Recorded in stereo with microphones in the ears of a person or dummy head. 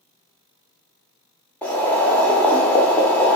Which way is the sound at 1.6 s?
5° left (ahead or behind).